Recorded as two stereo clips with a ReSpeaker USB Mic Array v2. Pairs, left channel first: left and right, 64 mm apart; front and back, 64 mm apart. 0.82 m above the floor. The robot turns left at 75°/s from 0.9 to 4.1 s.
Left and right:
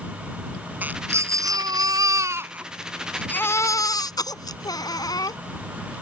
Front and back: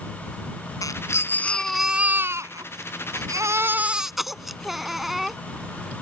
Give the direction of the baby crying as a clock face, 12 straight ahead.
1 o'clock.